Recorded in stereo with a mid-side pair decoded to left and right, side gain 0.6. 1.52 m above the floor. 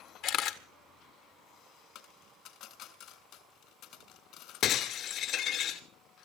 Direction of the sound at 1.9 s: 70° left.